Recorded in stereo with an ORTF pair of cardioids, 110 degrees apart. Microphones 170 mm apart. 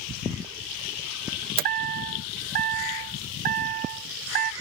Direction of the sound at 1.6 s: 60° right.